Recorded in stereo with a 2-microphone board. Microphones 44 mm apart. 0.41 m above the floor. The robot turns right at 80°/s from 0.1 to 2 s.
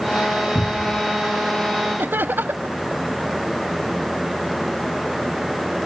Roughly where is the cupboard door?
Left.